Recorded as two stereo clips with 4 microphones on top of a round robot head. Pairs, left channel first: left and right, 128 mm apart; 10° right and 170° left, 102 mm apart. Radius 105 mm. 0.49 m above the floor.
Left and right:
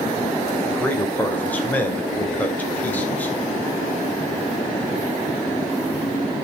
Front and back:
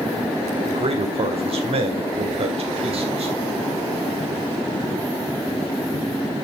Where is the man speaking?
165° left, 2.5 m.